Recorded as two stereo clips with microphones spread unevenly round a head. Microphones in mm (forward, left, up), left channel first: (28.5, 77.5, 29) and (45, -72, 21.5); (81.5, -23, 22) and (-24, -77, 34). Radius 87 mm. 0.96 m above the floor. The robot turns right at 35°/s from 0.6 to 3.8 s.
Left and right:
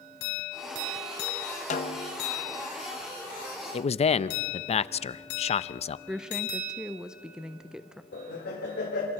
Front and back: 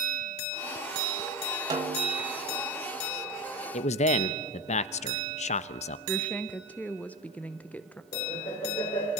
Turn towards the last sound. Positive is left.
turn(degrees=75)